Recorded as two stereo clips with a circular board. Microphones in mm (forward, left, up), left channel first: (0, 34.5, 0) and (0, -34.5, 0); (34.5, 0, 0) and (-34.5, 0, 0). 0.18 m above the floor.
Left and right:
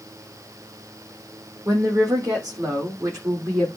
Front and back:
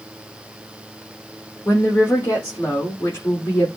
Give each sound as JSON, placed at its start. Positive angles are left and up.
{"t": 1.6, "sound": "a woman speaking", "azimuth_deg": -55, "distance_m": 7.0}